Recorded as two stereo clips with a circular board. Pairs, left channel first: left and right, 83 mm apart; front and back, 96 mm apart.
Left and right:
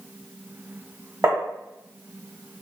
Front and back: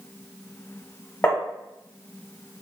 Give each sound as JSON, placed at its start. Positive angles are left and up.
{"t": 1.2, "sound": "tapping", "azimuth_deg": -65, "distance_m": 1.2}